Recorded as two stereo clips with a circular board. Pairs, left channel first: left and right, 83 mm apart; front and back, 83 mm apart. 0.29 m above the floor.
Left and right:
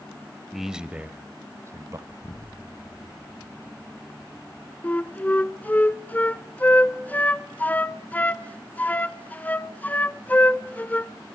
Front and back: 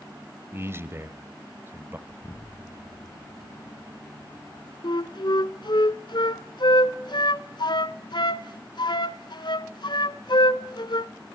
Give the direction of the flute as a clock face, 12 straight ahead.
11 o'clock.